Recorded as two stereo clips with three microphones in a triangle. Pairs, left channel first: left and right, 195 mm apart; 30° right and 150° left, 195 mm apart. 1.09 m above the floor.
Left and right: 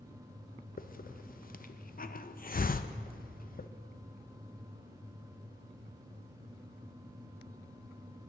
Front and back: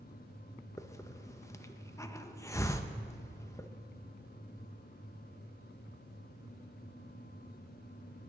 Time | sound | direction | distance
0.8 | a hiss | 45° left | 0.5 m